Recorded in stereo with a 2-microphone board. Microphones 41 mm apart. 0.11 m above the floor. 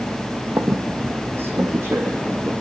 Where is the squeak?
75° right (ahead or behind), 1.6 m.